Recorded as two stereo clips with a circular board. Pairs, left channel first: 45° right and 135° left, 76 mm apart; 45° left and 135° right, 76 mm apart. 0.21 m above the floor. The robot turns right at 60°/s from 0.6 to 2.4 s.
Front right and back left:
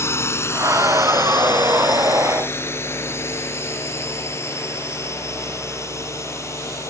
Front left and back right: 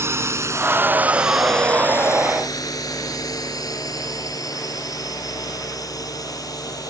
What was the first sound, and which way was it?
A drone, 90° right.